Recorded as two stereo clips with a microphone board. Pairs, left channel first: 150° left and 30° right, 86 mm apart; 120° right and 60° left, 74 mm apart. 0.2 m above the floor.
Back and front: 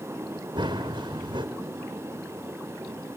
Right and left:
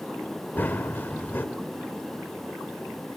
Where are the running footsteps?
60° right, 2.0 m.